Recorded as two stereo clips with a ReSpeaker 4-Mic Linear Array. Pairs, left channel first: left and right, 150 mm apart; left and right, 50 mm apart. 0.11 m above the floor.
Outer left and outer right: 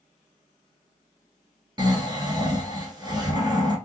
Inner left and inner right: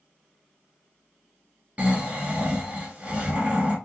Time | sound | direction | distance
1.8 | snoring | 30° right (ahead or behind) | 1.4 m